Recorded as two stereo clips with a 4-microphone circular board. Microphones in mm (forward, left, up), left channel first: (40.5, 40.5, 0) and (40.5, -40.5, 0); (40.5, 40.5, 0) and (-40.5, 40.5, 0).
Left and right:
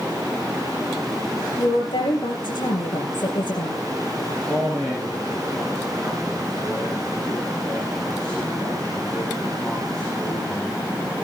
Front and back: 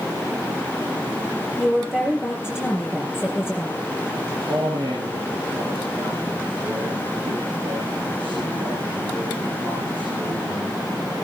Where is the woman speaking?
100° left, 5 m.